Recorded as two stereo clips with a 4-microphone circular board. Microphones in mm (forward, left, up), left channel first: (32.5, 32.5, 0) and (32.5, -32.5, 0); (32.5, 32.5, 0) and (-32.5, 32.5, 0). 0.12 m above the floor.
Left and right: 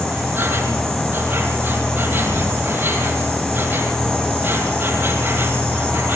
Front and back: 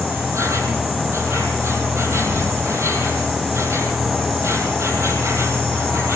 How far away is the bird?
I don't hear a bird.